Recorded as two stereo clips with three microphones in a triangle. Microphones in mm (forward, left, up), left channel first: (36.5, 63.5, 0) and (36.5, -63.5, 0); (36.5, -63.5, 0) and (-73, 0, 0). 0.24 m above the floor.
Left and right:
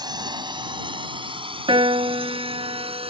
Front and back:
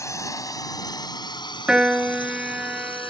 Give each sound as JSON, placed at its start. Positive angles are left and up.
{"t": 0.0, "sound": "a drone", "azimuth_deg": -75}
{"t": 1.7, "sound": "a piano", "azimuth_deg": -130}